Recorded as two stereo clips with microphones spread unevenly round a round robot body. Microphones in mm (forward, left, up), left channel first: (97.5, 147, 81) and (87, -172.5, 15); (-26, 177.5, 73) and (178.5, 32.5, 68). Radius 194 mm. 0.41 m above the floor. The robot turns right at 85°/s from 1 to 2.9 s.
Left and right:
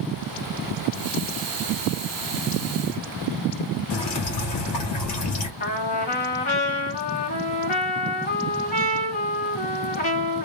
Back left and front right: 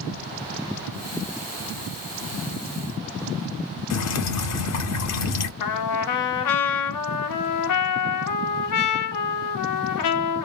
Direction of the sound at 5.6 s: 155° left.